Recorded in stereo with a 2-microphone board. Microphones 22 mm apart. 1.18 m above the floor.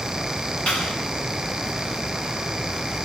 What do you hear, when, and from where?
0.7 s a clap: 85° left, 10 m